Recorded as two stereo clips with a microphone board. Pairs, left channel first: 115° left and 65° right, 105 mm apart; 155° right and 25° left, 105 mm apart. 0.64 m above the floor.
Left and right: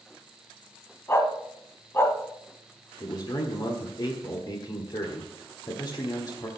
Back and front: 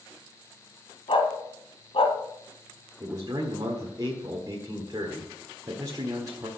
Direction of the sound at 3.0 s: 70° left.